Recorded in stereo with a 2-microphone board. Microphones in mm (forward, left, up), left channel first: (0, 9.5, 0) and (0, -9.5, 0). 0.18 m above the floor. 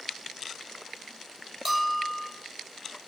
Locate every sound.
1.6 s a bell: 25° right (ahead or behind), 5.5 m